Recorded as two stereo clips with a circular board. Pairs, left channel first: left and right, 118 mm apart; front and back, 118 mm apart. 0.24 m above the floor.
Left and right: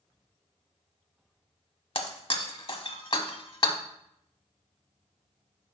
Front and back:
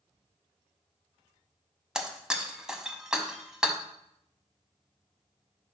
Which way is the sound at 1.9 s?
95° left.